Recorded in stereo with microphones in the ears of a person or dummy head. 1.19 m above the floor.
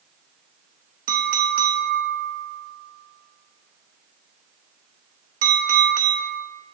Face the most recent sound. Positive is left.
turn(degrees=-50)  # may be behind; listen again after turning